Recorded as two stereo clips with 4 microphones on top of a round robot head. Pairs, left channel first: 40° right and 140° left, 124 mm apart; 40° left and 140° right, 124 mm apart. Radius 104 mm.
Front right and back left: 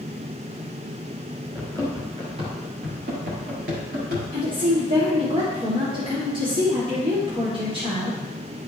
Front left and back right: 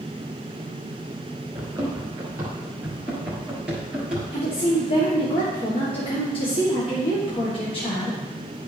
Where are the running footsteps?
165° right, 1.6 m; by 4.2 s 135° left, 2.5 m.